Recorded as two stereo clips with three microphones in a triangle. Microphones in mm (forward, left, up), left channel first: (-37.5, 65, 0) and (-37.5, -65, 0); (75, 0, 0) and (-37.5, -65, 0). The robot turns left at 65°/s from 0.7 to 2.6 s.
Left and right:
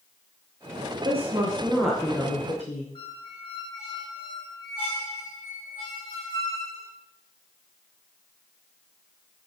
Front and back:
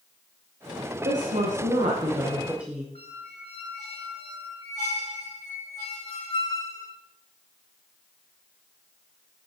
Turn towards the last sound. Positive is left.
turn(degrees=50)